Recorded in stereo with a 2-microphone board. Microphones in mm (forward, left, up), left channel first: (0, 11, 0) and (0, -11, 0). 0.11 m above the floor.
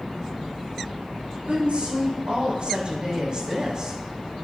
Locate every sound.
1.5 s a woman speaking: 60° right (ahead or behind), 6 m; by 4.0 s 30° right (ahead or behind), 5 m